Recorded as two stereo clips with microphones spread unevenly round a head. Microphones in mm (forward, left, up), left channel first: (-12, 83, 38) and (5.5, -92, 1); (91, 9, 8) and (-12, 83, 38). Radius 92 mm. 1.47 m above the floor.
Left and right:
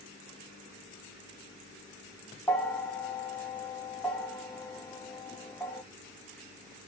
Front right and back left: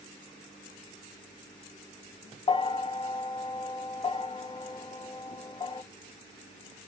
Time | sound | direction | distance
2.5 | a bell | 10° left | 0.7 m